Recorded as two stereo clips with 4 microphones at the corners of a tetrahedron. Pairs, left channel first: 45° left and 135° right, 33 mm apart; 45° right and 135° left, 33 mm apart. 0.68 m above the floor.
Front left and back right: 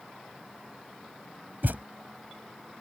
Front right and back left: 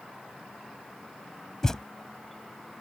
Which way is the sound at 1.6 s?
120° right.